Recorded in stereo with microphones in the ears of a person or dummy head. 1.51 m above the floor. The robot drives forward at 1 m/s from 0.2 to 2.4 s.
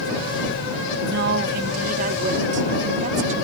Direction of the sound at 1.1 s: 65° right (ahead or behind).